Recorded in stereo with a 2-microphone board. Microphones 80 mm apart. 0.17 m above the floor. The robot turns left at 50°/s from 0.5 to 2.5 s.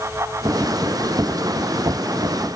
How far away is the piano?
No piano in this recording.